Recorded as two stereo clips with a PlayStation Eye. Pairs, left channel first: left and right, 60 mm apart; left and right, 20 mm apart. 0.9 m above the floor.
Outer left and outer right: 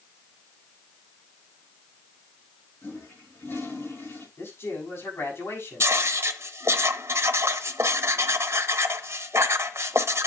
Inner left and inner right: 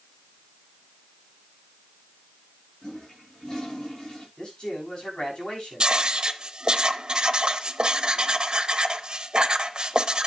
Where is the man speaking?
40° left (ahead or behind), 7 m.